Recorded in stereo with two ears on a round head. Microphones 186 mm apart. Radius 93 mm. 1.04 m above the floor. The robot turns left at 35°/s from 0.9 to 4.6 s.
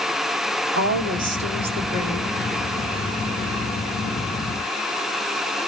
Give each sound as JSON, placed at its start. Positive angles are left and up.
{"t": 0.8, "sound": "a woman speaking", "azimuth_deg": -125, "distance_m": 2.0}